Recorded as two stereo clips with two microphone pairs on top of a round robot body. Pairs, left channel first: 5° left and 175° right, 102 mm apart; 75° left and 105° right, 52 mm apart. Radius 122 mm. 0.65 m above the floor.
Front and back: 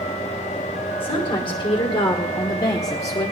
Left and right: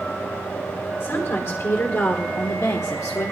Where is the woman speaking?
40° left, 3 m; by 3.3 s 65° left, 1.5 m.